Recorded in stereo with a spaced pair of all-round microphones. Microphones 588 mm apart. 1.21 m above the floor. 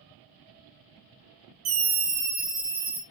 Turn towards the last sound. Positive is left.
turn(degrees=-55)  # may be behind; listen again after turning